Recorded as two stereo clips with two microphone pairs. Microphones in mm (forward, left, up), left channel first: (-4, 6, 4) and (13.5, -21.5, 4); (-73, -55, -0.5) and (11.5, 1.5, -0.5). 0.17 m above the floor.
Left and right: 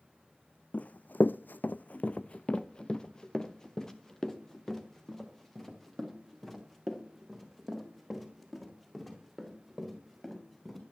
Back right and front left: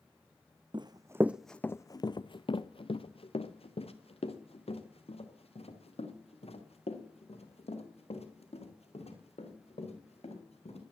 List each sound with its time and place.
0.7 s running footsteps: 75° left, 0.6 m; by 10.8 s 155° right, 6.5 m